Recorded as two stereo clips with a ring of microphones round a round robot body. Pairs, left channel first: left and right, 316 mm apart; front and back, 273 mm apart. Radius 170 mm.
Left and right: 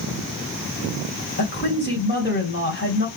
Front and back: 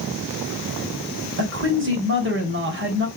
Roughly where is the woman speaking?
Behind left.